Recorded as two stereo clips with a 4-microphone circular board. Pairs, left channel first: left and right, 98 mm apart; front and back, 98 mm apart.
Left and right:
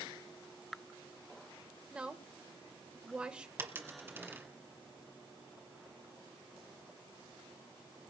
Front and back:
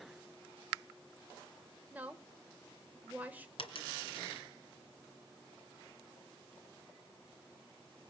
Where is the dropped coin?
20° right, 2 m.